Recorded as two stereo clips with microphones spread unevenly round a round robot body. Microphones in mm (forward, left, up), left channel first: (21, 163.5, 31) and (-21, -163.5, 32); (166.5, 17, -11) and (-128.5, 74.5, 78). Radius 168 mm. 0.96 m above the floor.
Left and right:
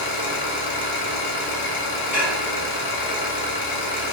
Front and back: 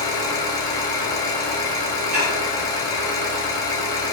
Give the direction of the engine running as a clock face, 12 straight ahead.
10 o'clock.